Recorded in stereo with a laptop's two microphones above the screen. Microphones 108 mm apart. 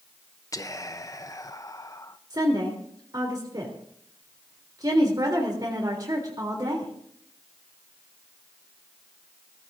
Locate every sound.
0.5 s whispering: 30° left (ahead or behind), 0.6 m
2.3 s a woman speaking: 35° right (ahead or behind), 3 m